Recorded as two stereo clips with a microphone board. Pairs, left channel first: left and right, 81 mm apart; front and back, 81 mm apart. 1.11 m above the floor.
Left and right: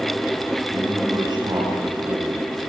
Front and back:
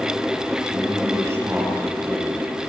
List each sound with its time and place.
0.7 s a man speaking: 125° right, 10 m